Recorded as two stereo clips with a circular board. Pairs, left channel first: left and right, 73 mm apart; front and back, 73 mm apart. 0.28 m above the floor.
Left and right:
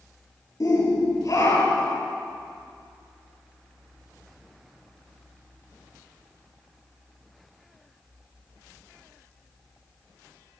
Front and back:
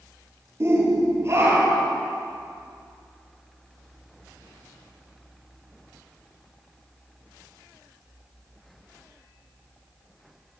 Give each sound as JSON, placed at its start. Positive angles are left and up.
{"t": 0.6, "sound": "a shout", "azimuth_deg": 130, "distance_m": 7.0}